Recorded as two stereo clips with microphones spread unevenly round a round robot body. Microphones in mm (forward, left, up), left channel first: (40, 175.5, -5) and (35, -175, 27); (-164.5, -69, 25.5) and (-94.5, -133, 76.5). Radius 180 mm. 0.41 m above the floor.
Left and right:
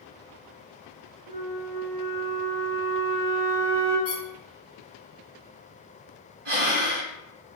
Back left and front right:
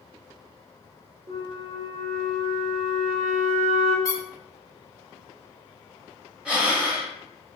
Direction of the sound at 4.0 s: 170° right.